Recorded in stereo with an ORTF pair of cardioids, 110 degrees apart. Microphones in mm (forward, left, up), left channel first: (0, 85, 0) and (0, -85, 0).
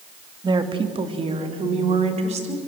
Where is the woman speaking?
25° right, 2.5 m; by 2.6 s 40° right, 5.5 m.